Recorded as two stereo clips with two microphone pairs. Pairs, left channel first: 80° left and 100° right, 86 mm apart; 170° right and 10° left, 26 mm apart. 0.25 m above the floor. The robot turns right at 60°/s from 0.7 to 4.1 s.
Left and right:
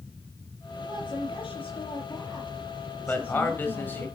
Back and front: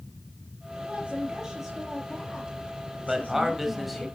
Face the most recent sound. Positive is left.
turn(degrees=115)